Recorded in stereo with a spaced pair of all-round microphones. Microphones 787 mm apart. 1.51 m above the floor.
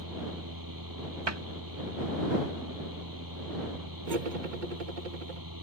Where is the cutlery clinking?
70° right (ahead or behind).